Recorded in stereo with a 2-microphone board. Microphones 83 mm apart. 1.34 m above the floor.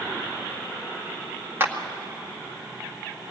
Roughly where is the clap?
Right.